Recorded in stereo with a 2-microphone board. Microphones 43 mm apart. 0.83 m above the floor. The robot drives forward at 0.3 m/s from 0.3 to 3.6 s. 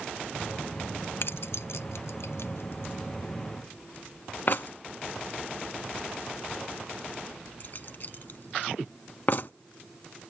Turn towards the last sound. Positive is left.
turn(degrees=45)  # may be behind; listen again after turning